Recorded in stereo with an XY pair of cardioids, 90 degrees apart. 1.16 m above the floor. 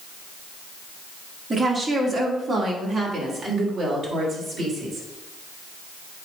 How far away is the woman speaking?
About 2 m.